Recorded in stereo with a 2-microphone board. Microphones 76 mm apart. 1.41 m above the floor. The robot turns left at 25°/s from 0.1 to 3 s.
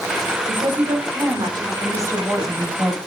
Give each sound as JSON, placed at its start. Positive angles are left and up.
{"t": 0.5, "sound": "a woman speaking", "azimuth_deg": -100, "distance_m": 5.0}
{"t": 1.8, "sound": "a woman speaking", "side_deg": -45, "distance_m": 8.0}